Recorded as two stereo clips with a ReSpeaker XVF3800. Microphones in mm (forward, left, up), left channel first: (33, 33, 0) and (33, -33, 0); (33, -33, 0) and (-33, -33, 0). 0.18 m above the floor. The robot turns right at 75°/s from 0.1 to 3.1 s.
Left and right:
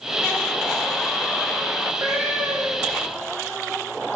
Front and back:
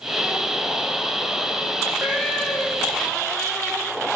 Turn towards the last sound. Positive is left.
turn(degrees=-30)